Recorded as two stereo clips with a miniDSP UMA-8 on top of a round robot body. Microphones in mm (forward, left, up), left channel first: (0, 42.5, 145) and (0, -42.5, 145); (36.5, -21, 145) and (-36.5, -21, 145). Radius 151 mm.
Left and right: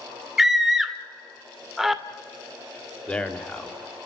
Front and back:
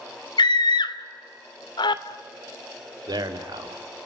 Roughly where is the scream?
Ahead.